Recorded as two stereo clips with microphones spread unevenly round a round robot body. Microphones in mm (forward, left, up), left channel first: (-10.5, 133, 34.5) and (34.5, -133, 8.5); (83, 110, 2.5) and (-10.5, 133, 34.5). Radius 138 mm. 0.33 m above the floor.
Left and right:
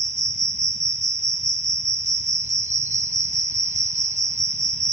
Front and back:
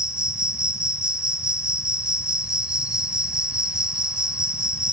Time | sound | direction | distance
0.0 | an insect | 85° right | 0.7 m